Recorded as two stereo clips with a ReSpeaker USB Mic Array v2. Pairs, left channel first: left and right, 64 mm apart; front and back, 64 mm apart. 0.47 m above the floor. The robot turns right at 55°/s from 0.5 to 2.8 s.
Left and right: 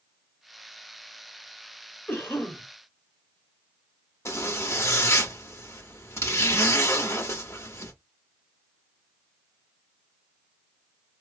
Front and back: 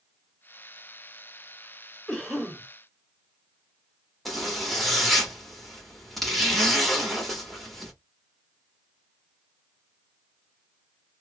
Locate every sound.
2.1 s a cough: 75° left, 1.4 m; by 2.6 s 105° left, 1.4 m
4.2 s a zipper: 90° left, 1.1 m